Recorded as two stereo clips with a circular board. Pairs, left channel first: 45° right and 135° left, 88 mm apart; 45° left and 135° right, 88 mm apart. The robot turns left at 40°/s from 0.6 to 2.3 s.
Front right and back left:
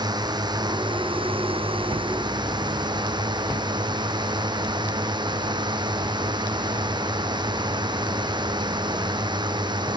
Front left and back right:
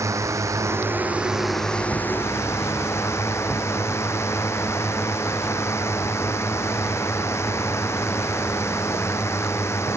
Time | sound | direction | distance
0.0 | a drone | 170° left | ?